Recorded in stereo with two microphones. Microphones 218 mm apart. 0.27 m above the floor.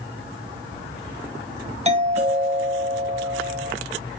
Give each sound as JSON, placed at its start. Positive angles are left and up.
{"t": 1.9, "sound": "a doorbell", "side_deg": -30, "distance_m": 1.9}